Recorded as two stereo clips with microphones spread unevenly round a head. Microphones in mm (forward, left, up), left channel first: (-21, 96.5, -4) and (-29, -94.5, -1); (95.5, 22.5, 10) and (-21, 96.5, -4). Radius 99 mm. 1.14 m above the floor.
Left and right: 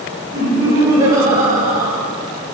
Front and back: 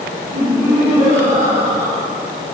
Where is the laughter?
160° right, 1.0 m.